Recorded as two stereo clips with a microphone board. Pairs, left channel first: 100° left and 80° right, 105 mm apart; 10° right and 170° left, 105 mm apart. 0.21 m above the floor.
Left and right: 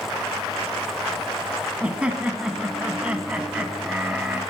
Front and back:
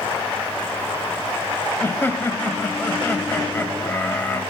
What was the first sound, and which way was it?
Laughter, 20° right.